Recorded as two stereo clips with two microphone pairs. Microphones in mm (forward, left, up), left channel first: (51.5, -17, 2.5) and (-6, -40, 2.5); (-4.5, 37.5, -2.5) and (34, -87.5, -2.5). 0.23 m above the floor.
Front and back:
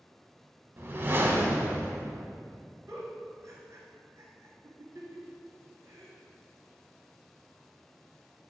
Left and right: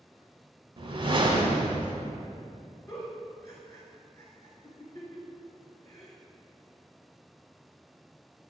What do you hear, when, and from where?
0.8 s a whoosh: 110° right, 0.5 m
2.9 s a giggle: 170° left, 1.3 m